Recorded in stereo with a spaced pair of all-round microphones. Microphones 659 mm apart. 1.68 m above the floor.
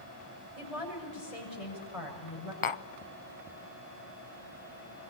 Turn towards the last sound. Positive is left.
turn(degrees=55)  # may be behind; listen again after turning